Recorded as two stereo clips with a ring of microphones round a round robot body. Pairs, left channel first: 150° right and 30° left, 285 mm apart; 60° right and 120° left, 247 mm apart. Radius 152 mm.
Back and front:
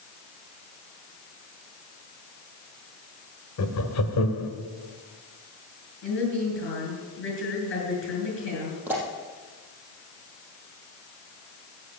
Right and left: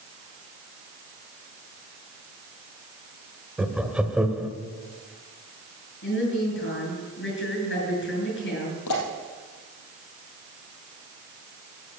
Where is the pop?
55° right, 4 m.